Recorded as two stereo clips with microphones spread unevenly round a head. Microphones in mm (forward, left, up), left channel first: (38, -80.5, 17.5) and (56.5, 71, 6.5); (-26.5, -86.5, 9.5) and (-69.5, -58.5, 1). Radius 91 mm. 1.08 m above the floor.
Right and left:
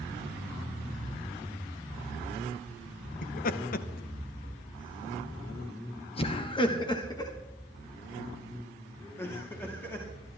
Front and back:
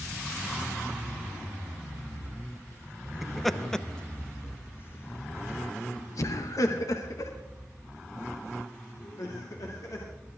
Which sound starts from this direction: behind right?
Laughter, at 3.2 s.